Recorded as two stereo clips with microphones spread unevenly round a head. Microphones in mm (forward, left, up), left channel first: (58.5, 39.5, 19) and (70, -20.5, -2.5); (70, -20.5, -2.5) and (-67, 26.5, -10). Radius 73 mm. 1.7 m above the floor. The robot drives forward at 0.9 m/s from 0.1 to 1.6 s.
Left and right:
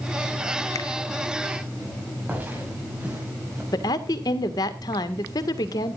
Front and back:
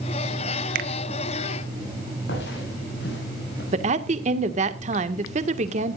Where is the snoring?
I don't hear snoring.